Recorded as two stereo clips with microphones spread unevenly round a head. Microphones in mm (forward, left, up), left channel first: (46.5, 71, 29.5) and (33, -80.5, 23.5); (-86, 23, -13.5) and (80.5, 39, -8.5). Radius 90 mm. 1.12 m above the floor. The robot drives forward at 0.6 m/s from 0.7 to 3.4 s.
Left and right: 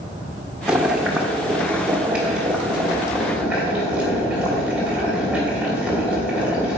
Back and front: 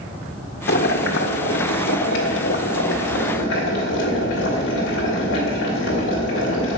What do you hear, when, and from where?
0.7 s boiling: straight behind, 1.1 m